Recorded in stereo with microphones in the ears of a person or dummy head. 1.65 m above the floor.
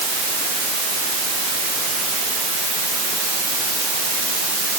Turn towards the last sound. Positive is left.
No sound to turn to.